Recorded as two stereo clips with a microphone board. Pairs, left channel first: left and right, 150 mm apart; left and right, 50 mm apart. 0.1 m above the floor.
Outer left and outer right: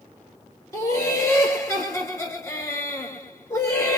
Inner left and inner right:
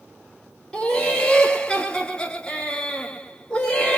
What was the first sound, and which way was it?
Laughter, 20° left (ahead or behind).